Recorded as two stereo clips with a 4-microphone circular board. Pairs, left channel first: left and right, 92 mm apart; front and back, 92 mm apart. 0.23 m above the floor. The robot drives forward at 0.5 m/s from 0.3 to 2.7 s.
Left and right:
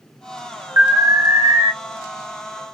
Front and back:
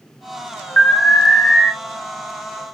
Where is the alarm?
60° right, 1.5 m; by 1.7 s 90° right, 1.4 m.